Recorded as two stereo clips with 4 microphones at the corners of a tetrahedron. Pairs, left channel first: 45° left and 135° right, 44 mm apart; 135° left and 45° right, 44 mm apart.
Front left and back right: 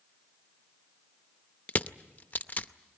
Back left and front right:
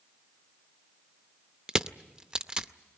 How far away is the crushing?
About 0.6 m.